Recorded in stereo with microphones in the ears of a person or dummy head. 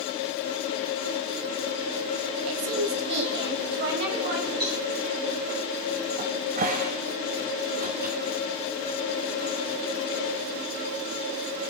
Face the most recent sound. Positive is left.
turn(degrees=-40)  # may be behind; listen again after turning